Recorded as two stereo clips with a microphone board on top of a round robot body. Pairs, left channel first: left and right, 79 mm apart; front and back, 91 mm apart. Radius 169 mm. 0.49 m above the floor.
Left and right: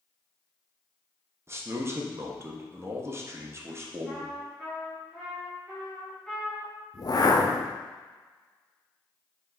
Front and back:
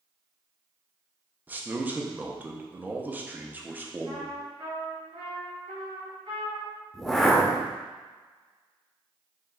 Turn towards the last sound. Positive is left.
turn(degrees=85)